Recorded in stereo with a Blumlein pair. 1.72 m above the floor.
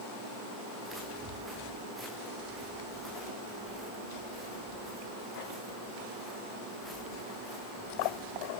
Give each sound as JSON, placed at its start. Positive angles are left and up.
{"t": 0.8, "sound": "footsteps", "azimuth_deg": 0, "distance_m": 9.5}